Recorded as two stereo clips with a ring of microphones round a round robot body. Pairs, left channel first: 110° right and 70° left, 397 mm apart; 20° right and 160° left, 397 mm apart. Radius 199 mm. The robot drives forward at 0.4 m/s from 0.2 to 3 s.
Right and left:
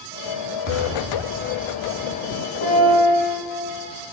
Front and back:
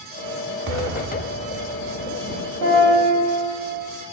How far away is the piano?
About 1.9 m.